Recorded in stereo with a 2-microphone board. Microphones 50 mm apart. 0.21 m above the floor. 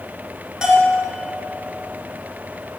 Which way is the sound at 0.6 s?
15° right (ahead or behind).